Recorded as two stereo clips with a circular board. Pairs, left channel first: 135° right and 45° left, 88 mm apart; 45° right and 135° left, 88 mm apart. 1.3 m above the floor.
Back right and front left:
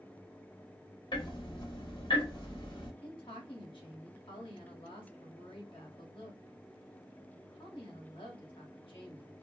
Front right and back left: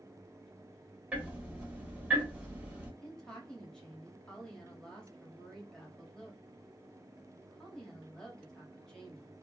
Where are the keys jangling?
I don't hear keys jangling.